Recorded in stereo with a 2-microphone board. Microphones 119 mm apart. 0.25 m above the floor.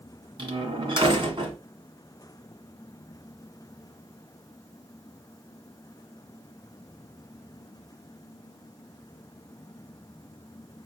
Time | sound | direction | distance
0.4 | a door slam | 45° right (ahead or behind) | 1.4 m